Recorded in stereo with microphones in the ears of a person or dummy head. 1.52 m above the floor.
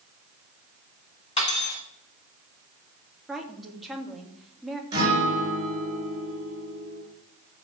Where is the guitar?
15° right (ahead or behind), 4.5 m.